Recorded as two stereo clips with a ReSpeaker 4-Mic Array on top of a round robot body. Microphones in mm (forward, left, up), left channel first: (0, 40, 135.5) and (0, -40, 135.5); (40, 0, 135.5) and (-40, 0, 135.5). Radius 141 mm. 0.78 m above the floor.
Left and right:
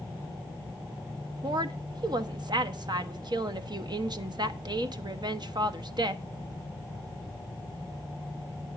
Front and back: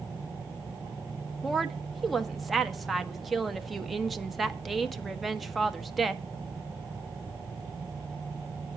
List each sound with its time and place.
1.4 s a woman speaking: 90° right, 1.3 m